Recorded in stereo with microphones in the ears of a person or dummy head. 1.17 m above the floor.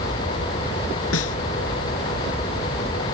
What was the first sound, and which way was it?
A snare drum, 90° left.